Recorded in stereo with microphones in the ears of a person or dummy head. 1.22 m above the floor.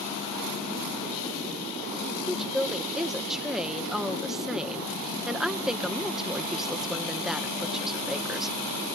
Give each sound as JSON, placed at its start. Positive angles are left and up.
{"t": 2.3, "sound": "a woman speaking", "side_deg": -5}